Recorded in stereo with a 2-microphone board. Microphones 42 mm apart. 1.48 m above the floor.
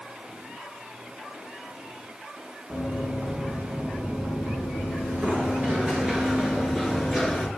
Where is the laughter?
I don't hear laughter.